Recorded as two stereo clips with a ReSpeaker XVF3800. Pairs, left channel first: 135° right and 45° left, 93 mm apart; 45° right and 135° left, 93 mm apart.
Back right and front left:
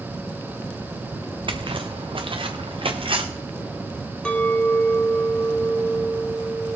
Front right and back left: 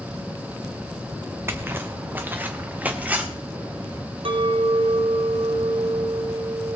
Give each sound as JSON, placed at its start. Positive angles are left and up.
{"t": 1.5, "sound": "footsteps", "azimuth_deg": 70, "distance_m": 1.3}
{"t": 4.2, "sound": "a clink", "azimuth_deg": 145, "distance_m": 1.4}